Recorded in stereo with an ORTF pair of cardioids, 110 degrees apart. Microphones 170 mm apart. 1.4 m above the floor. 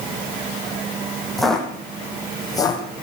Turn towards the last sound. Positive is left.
turn(degrees=30)